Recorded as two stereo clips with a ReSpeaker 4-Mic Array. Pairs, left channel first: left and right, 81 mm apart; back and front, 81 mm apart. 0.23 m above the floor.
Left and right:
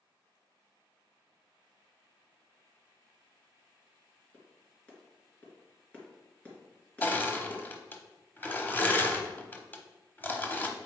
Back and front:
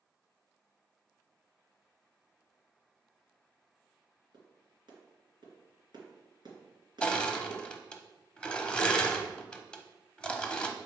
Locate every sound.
4.3 s a clap: 15° left, 2.5 m
7.0 s crushing: 120° left, 0.8 m